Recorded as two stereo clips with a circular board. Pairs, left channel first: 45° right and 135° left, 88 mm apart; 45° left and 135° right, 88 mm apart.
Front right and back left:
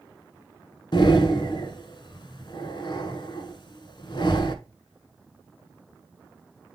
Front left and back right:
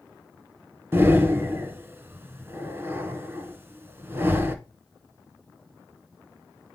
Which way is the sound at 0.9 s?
70° right.